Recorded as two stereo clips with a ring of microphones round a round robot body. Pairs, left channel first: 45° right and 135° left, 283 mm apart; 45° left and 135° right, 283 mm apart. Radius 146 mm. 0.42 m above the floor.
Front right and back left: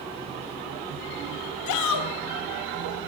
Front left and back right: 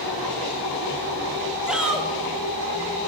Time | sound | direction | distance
1.7 | a shout | 50° right | 3 m